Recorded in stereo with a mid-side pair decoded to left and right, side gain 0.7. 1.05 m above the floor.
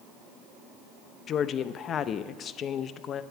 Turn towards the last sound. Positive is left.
turn(degrees=40)